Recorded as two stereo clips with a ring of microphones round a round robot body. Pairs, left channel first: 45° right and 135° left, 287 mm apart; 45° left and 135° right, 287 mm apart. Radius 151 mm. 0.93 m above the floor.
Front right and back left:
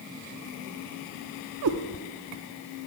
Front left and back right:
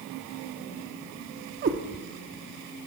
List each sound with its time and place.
1.6 s a cat meowing: 165° left, 0.6 m